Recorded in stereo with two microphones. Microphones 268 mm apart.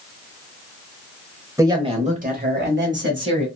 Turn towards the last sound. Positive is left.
turn(degrees=-45)  # may be behind; listen again after turning